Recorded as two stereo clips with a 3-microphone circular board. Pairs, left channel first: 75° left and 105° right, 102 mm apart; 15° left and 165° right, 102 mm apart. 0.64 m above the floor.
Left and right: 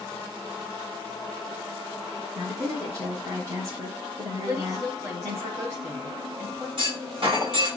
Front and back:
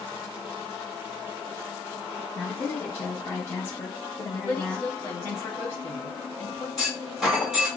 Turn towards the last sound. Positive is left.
turn(degrees=-80)